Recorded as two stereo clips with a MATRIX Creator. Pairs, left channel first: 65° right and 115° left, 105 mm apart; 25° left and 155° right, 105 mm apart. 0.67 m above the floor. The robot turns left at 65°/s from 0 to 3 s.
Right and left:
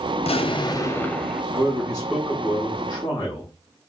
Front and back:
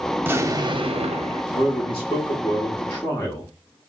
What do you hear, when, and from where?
0.2 s an explosion: 80° right, 0.5 m; by 1.4 s 160° right, 0.5 m
1.5 s a man speaking: 55° left, 1.0 m; by 3.5 s 45° right, 1.0 m